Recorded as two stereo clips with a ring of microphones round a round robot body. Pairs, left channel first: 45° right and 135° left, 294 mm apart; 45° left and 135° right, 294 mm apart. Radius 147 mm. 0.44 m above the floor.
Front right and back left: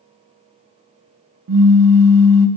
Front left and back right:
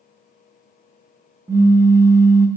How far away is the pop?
About 0.6 m.